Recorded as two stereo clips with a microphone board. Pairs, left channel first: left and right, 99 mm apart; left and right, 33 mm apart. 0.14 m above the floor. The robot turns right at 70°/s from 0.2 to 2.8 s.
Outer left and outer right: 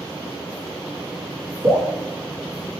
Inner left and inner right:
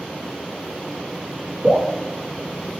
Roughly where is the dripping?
Right.